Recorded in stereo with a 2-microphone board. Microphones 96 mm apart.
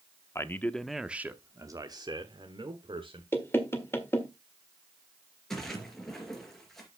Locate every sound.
0.3 s a man speaking: 30° left (ahead or behind), 0.7 m; by 3.2 s 60° right (ahead or behind), 1.6 m
3.3 s knocking: 25° left (ahead or behind), 1.6 m
5.5 s a splash: 5° left (ahead or behind), 3 m